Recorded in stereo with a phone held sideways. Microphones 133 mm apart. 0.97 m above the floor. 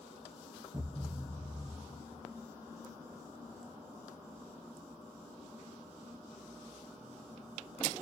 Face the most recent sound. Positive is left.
turn(degrees=-25)  # may be behind; listen again after turning